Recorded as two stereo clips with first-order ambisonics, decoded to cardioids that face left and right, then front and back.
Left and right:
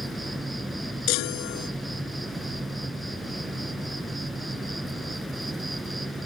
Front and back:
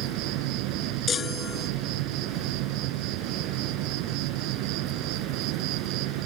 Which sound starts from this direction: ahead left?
A chime, at 1.1 s.